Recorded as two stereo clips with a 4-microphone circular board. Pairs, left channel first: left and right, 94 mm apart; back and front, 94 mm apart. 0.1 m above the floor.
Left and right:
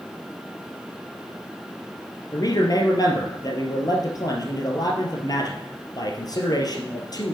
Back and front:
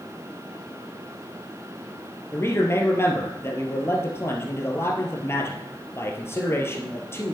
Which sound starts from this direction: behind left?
A man speaking, at 2.3 s.